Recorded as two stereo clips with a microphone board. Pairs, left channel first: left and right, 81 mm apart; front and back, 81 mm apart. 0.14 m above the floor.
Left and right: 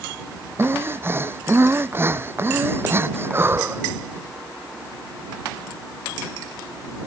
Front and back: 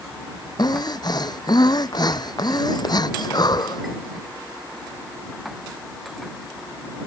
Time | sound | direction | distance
0.6 | breathing | 30° right | ?